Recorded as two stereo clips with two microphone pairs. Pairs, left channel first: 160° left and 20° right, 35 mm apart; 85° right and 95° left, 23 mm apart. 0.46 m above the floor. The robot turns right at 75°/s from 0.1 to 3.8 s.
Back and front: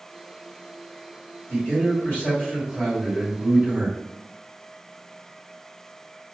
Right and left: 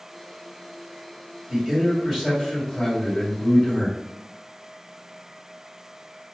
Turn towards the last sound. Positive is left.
turn(degrees=-55)